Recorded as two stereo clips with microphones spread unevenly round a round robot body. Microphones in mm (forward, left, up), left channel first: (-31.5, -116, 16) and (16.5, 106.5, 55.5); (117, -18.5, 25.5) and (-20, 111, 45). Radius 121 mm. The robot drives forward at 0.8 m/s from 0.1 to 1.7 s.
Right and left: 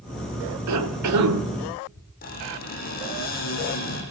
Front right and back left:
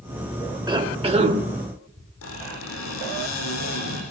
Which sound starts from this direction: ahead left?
A cough, at 0.7 s.